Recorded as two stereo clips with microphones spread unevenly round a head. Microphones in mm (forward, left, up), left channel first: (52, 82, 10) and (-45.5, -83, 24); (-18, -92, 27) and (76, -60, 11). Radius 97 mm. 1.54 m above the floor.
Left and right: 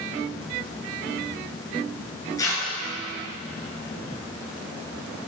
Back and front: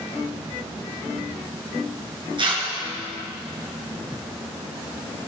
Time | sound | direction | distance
2.4 | tearing paper | 15° right | 5 m